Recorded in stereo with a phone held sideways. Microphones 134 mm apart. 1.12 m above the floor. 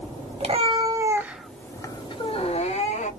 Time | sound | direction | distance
0.4 | a cat meowing | 50° right (ahead or behind) | 0.7 m